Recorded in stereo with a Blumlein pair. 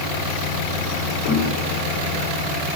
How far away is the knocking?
About 7.5 m.